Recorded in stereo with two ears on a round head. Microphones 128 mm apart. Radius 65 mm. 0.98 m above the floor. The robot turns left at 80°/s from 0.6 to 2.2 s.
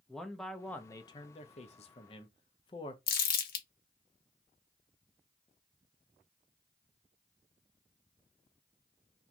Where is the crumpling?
65° left (ahead or behind), 0.7 m.